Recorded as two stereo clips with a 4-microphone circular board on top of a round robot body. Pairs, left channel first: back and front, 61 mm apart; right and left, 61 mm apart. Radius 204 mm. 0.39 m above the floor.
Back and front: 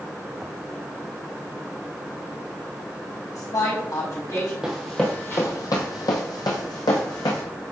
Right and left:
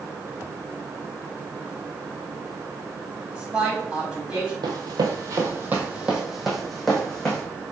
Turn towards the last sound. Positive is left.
turn(degrees=-170)